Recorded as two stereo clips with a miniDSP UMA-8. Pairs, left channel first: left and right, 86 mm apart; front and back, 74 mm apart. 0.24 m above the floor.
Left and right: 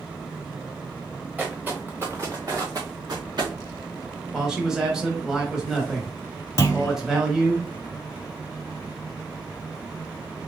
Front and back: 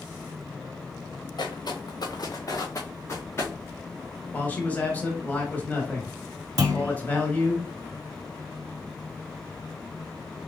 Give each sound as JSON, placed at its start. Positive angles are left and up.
{"t": 1.4, "sound": "footsteps", "azimuth_deg": -15, "distance_m": 1.4}
{"t": 4.3, "sound": "a man speaking", "azimuth_deg": -15, "distance_m": 1.1}
{"t": 6.6, "sound": "a clunk", "azimuth_deg": 140, "distance_m": 0.7}